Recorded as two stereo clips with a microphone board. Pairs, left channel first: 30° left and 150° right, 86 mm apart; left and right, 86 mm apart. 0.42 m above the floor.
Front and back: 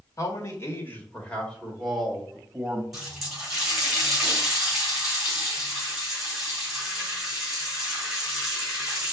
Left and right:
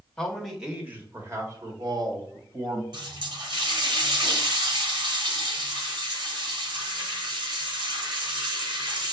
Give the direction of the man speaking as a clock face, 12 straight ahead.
12 o'clock.